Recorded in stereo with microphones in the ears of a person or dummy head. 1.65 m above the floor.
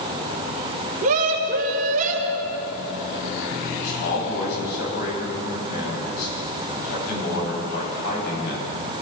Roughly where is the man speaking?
Left.